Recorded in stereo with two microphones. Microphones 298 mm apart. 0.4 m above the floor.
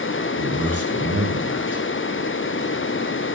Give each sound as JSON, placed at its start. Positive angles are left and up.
{"t": 0.4, "sound": "a man speaking", "side_deg": -60, "distance_m": 5.5}